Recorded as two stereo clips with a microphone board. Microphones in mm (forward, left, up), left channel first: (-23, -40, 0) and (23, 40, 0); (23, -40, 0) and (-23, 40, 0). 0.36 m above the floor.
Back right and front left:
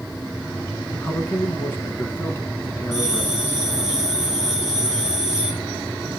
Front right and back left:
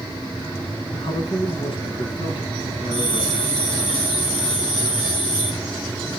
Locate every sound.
0.9 s a man speaking: 55° right, 4 m
2.9 s a bell: 25° right, 8.5 m